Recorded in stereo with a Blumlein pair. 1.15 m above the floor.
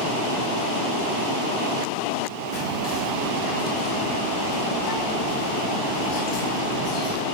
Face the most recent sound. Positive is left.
turn(degrees=35)